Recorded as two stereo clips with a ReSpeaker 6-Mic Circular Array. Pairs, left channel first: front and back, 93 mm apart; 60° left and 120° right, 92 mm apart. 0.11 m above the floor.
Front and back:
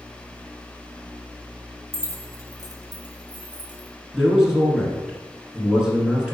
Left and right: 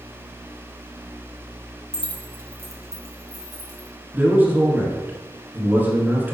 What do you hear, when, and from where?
1.9 s keys jangling: 170° left, 1.0 m; by 3.9 s 155° right, 2 m
4.1 s a man speaking: 115° right, 1.5 m